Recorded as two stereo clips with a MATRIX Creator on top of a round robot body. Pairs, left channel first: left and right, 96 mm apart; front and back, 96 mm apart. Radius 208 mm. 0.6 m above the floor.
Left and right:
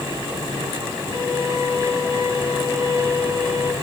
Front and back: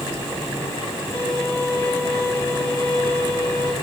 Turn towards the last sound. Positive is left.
turn(degrees=55)